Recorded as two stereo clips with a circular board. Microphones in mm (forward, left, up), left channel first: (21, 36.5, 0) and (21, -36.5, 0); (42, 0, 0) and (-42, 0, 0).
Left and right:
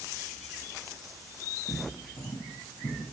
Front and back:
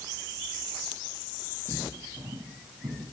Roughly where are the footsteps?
Behind left.